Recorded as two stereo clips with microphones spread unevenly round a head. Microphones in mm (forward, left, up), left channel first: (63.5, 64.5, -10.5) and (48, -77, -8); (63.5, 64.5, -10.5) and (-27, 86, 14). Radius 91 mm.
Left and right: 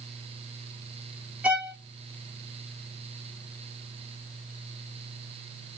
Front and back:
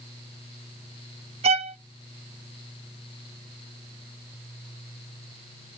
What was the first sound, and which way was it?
A violin, straight behind.